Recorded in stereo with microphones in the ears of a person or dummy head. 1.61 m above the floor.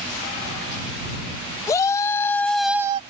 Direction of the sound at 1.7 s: 20° left (ahead or behind).